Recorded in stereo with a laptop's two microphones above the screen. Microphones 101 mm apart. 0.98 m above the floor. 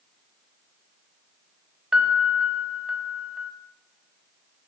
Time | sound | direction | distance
1.9 | a piano | 10° right (ahead or behind) | 0.6 m